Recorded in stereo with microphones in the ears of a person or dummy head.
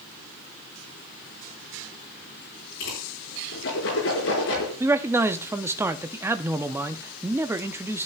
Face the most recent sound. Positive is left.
turn(degrees=-10)  # may be behind; listen again after turning